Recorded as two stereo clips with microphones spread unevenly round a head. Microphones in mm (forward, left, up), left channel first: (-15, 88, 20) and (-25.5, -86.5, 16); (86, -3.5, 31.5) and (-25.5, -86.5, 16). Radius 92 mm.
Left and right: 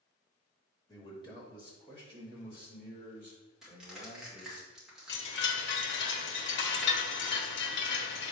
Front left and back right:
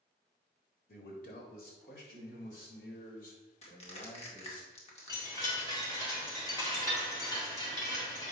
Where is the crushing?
5° right, 2.5 m.